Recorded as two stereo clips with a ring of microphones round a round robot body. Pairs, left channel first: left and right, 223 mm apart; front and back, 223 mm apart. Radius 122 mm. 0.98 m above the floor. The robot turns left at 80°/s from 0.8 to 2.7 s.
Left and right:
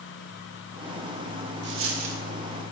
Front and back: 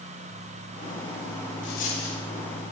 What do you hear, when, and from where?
1.6 s a dropped coin: 45° right, 0.9 m; by 2.2 s 95° right, 0.9 m